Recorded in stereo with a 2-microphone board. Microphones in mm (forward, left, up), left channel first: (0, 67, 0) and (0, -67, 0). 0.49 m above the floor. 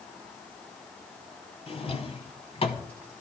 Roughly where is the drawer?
Left.